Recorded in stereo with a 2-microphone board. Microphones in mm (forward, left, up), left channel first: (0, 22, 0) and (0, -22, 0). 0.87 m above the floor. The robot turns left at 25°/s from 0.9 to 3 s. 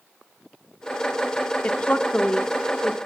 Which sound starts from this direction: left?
A woman speaking, at 1.6 s.